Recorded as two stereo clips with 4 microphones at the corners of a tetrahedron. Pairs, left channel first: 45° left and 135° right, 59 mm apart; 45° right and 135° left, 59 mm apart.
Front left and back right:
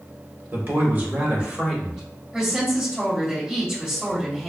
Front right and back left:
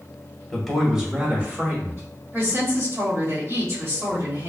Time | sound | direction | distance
0.5 | a man speaking | 125° right | 1.2 m
2.3 | a woman speaking | 160° left | 1.9 m